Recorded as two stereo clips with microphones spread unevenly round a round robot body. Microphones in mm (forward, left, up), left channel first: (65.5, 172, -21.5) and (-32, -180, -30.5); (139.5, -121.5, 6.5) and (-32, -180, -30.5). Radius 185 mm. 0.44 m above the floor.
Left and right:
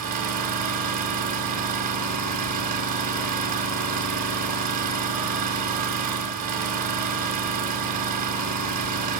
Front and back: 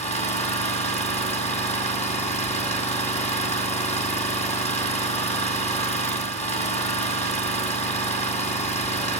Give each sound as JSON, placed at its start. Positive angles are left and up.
{"t": 0.0, "sound": "an engine running", "azimuth_deg": -40, "distance_m": 1.9}